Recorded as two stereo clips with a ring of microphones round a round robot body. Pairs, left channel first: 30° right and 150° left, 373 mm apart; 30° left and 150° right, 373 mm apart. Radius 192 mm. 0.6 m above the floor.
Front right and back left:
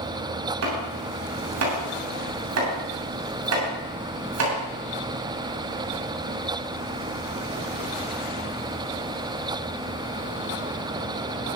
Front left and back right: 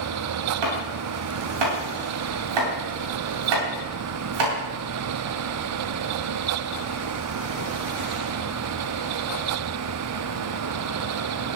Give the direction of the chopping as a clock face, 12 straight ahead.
5 o'clock.